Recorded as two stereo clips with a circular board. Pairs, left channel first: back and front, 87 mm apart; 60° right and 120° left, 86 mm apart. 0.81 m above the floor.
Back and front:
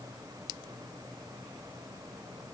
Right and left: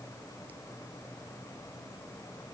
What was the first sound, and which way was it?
Only background noise.